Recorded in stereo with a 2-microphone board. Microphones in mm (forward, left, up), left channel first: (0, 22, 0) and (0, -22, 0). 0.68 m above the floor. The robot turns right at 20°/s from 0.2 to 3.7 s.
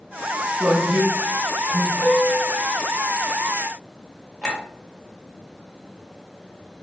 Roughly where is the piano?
Left.